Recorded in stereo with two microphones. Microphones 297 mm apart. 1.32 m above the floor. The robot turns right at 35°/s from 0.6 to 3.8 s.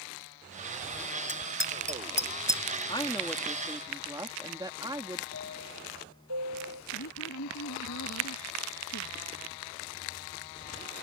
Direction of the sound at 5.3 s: 75° right (ahead or behind).